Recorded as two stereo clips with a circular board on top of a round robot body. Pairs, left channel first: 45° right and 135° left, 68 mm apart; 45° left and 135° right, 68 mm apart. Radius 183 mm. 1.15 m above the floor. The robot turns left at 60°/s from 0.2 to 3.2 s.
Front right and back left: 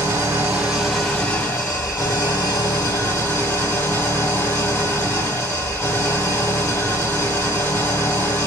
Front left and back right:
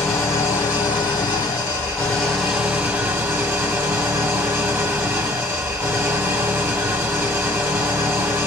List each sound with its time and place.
0.0 s an engine running: 90° left, 2 m; by 8.5 s 90° right, 2 m